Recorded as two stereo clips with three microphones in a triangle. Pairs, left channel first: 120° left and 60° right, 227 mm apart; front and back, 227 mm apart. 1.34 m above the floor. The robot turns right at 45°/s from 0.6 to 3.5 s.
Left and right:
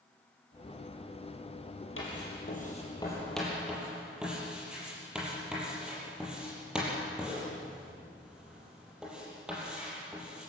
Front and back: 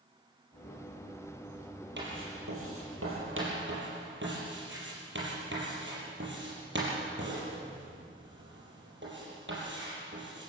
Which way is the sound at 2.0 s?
145° left.